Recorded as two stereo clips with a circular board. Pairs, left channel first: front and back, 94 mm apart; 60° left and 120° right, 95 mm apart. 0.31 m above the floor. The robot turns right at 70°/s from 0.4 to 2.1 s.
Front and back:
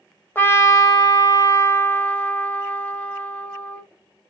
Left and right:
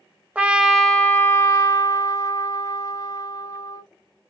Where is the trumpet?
50° right, 0.9 m; by 3.8 s 65° left, 0.9 m.